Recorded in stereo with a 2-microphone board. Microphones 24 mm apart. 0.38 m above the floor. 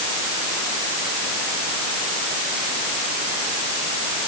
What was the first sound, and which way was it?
Only background noise.